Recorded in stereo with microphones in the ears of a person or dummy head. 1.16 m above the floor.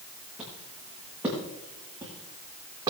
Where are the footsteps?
Centre (ahead or behind), 7.5 m; by 2.9 s 20° right (ahead or behind), 6 m.